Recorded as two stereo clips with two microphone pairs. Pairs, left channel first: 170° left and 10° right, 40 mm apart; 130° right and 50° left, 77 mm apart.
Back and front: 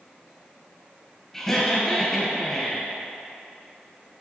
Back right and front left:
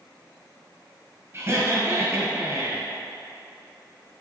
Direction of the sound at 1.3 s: 100° left.